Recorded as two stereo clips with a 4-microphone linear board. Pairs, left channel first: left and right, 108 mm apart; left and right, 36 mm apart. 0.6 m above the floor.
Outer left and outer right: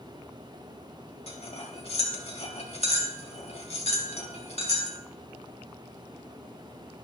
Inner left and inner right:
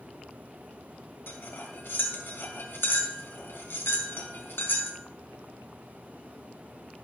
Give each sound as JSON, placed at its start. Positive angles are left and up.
{"t": 1.3, "sound": "cutlery clinking", "side_deg": 75, "distance_m": 2.5}